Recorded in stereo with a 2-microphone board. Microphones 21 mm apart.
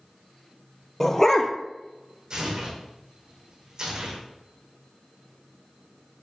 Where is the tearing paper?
40° right (ahead or behind), 4.5 m.